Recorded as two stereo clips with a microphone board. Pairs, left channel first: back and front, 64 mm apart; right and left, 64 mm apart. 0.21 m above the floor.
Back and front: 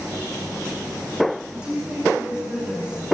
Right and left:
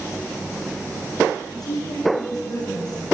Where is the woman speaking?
75° right, 8.5 m.